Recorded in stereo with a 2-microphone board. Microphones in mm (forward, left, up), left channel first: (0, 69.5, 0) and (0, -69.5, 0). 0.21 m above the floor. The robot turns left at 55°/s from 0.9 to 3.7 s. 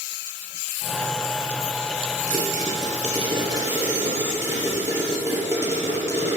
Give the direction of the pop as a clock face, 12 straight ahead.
3 o'clock.